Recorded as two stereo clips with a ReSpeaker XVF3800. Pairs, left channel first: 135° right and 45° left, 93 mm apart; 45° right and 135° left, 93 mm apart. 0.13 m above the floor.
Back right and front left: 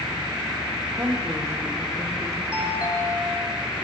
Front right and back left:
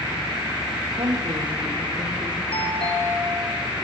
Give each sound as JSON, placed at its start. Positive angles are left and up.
{"t": 1.0, "sound": "a woman speaking", "azimuth_deg": 105, "distance_m": 6.5}
{"t": 2.5, "sound": "a doorbell", "azimuth_deg": -30, "distance_m": 8.0}